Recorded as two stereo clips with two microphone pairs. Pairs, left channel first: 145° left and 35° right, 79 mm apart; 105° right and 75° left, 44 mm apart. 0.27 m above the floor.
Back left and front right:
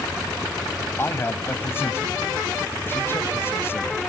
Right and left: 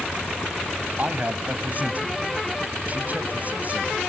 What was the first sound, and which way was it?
A man speaking, 100° left.